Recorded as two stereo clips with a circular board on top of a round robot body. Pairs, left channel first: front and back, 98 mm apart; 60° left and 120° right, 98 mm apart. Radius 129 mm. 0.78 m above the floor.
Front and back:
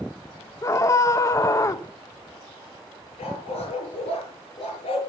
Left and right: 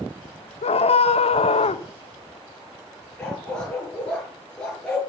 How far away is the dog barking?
About 6 m.